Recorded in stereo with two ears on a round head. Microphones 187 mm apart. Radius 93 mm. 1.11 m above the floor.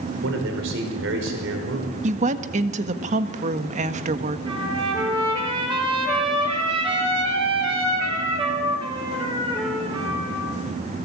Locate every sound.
0.2 s a man speaking: 65° right (ahead or behind), 5 m
2.0 s a woman speaking: 35° right (ahead or behind), 1.6 m
4.5 s a trumpet: 25° right (ahead or behind), 7 m